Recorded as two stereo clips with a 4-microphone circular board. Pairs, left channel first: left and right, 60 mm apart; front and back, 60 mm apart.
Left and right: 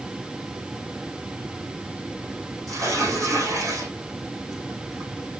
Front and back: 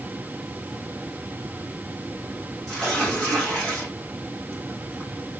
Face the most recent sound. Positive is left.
turn(degrees=-80)